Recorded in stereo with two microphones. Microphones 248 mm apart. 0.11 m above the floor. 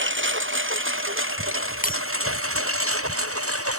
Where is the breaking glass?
35° left (ahead or behind).